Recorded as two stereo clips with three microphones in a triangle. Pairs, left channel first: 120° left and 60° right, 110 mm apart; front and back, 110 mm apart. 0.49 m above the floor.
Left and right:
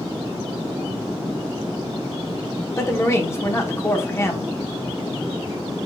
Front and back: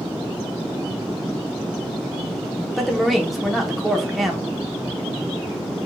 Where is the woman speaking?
90° left, 0.8 m.